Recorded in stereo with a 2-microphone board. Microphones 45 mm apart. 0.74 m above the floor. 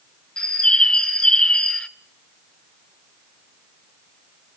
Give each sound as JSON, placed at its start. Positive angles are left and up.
{"t": 0.4, "sound": "a bird", "side_deg": 20, "distance_m": 0.9}